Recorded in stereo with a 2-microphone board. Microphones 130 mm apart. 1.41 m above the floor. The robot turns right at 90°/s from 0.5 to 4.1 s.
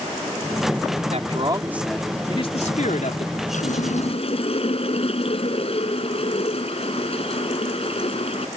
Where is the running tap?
75° left; by 8.5 s 125° left.